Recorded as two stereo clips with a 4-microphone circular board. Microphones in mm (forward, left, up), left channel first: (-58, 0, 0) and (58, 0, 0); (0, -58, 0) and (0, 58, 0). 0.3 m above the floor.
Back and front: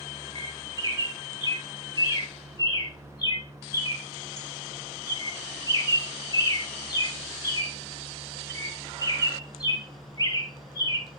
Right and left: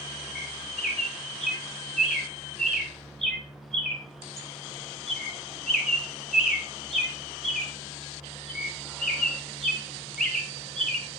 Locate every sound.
0.3 s a bird: 175° right, 1.7 m